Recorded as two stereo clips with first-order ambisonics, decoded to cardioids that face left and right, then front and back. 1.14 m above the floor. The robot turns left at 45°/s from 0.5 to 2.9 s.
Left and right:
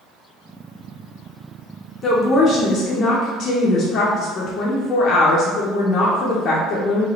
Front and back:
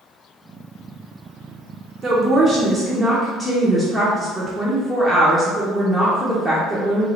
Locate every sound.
2.0 s a woman speaking: 120° left, 0.5 m; by 7.1 s 80° left, 0.5 m